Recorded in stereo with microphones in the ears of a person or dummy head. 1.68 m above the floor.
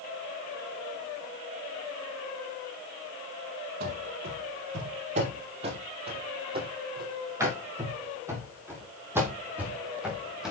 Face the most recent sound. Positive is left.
turn(degrees=-5)  # may be behind; listen again after turning